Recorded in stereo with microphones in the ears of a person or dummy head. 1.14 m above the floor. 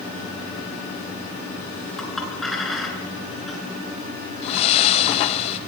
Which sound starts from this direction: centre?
A clink, at 2.0 s.